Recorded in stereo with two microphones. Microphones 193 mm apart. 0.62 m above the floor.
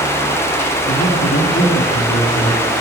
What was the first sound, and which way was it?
A man speaking, 70° left (ahead or behind).